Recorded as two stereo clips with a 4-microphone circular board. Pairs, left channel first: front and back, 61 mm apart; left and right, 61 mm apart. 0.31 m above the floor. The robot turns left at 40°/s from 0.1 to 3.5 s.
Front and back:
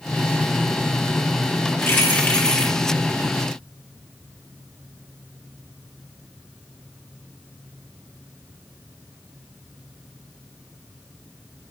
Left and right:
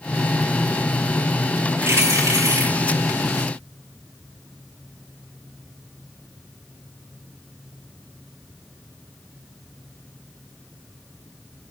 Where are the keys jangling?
45° right, 5 m; by 2.7 s 85° right, 5 m.